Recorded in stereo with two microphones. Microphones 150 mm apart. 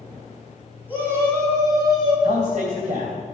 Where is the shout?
10° right (ahead or behind), 3.5 m; by 2.1 s 30° right (ahead or behind), 4 m.